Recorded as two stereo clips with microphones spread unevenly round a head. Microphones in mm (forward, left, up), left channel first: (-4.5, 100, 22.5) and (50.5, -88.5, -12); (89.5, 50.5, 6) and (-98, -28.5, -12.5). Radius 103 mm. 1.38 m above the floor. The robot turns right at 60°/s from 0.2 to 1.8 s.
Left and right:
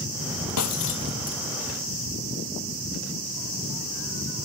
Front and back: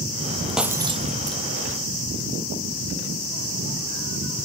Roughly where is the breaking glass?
Left.